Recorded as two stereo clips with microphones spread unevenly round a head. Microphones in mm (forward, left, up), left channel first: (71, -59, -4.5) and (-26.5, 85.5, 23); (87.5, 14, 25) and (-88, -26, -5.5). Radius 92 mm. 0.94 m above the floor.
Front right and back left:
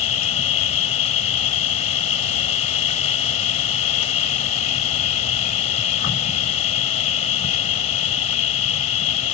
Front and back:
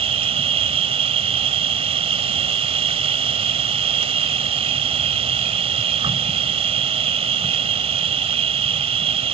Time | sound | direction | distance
0.0 | an insect | 110° right | ?